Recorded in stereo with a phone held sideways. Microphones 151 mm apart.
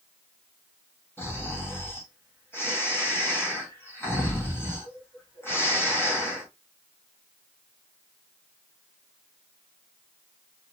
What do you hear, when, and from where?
1.2 s snoring: 15° left (ahead or behind), 1.4 m